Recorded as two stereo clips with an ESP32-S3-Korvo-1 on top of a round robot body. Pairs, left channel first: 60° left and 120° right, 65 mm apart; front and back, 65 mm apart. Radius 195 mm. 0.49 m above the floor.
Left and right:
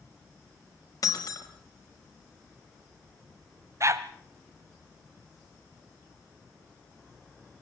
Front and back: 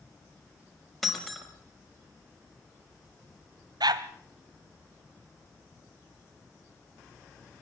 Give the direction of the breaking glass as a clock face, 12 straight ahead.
9 o'clock.